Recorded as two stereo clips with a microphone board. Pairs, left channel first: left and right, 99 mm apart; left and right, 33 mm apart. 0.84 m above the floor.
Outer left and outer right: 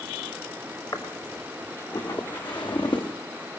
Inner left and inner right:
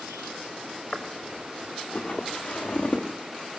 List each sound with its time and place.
0.9 s footsteps: 45° left (ahead or behind), 5 m; by 3.1 s 55° left (ahead or behind), 4 m